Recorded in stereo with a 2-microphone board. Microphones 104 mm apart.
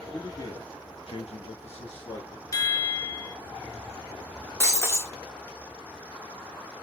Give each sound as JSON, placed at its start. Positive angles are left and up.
{"t": 0.1, "sound": "a man speaking", "side_deg": 35, "distance_m": 2.0}
{"t": 2.5, "sound": "a chime", "side_deg": 35, "distance_m": 0.6}
{"t": 4.6, "sound": "breaking glass", "side_deg": 25, "distance_m": 1.0}